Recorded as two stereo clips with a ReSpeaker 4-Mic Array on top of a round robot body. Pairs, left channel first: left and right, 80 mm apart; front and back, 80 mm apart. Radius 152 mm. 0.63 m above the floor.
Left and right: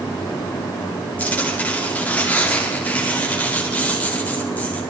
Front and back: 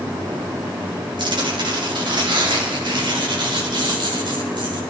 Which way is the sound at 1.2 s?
160° left.